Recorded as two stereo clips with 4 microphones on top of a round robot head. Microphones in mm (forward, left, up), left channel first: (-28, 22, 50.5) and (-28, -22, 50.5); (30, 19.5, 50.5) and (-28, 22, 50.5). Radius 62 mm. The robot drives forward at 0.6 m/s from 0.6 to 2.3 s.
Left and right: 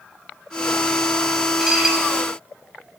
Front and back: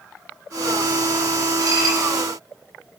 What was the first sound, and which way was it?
Dishes clattering, 170° right.